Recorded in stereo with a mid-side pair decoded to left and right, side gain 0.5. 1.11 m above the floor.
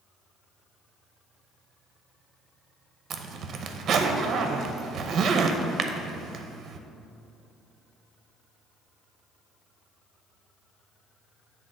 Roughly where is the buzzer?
I don't hear a buzzer.